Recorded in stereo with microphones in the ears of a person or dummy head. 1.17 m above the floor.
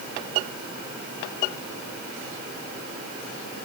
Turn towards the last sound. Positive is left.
No sound to turn to.